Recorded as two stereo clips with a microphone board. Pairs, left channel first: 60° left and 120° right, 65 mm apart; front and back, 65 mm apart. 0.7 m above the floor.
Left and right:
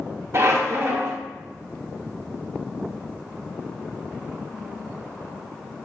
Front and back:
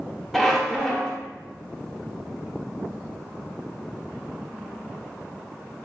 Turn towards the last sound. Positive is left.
turn(degrees=-85)